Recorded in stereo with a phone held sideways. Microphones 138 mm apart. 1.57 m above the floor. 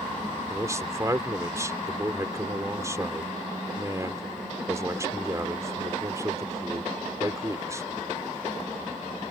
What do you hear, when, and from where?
0.5 s a man speaking: 20° right (ahead or behind)